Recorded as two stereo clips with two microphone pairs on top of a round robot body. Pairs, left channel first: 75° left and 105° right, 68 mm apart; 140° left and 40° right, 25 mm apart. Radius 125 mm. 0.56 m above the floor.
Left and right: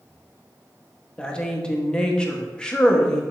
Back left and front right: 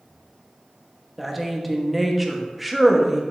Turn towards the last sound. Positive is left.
turn(degrees=40)